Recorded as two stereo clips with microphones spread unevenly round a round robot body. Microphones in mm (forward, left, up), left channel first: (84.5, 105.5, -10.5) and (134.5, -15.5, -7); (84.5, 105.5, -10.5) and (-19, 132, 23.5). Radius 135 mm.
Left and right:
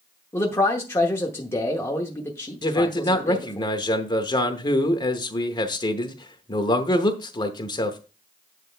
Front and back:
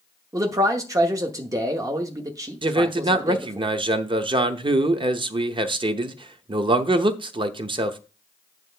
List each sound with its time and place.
0.3 s a man speaking: 120° left, 0.9 m
2.6 s a man speaking: 140° left, 0.8 m